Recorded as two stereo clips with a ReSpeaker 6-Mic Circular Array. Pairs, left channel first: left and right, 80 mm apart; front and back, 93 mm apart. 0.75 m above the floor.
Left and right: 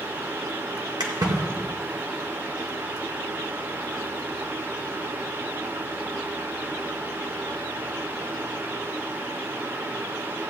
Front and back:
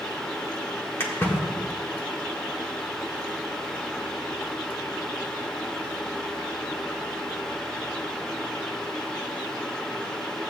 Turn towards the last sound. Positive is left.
turn(degrees=-65)